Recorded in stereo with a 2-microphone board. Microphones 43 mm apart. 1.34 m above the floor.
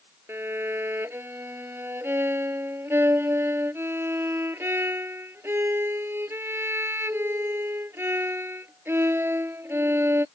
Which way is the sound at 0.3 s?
65° right (ahead or behind).